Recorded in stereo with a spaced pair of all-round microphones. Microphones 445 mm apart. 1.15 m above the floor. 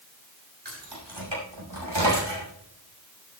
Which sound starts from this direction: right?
Keys jangling, at 0.7 s.